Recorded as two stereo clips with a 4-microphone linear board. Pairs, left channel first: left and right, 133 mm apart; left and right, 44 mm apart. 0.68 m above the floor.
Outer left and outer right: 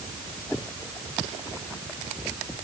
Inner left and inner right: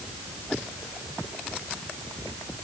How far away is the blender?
No blender in this recording.